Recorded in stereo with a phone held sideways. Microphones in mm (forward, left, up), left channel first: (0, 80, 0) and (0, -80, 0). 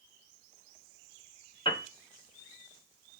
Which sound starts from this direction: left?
A piano, at 1.6 s.